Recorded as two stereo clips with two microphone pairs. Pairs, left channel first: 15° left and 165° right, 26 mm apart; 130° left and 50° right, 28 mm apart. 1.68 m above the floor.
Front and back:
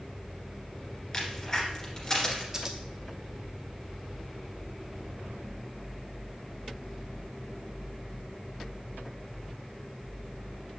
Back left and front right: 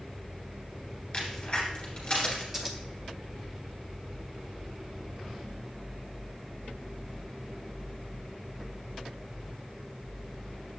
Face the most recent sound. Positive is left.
turn(degrees=-115)